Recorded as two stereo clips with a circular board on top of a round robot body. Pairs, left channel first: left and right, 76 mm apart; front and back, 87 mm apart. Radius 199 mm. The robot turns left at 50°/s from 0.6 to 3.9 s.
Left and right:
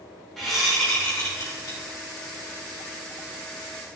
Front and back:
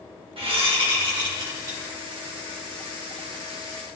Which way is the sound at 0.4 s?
175° left.